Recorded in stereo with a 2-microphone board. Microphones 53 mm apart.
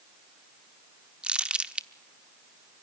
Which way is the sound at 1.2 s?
20° right (ahead or behind).